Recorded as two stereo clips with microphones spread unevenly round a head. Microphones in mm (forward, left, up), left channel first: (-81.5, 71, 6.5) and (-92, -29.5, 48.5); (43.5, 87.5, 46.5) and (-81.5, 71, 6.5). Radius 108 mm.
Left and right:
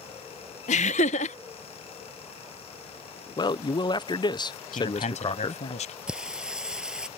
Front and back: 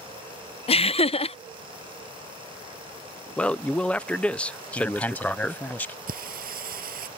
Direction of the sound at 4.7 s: 85° left.